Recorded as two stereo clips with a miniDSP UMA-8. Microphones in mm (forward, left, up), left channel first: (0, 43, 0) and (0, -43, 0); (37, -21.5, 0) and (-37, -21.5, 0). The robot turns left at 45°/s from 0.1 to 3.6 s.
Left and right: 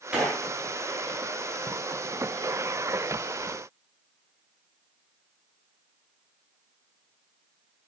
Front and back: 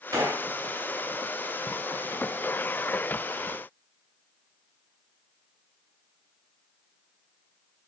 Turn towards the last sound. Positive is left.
turn(degrees=40)